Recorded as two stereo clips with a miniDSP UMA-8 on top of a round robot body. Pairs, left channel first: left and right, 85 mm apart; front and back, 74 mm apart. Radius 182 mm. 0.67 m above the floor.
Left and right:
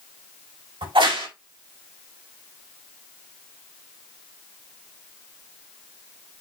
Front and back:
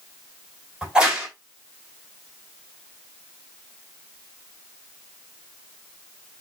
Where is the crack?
105° right, 4 m.